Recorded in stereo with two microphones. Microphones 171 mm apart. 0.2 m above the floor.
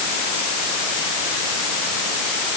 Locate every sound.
Only background noise.